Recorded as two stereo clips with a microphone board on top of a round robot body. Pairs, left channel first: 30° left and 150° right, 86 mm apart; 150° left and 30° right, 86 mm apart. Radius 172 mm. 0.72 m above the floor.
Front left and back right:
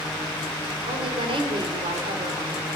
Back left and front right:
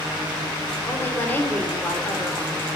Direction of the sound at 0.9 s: 140° right.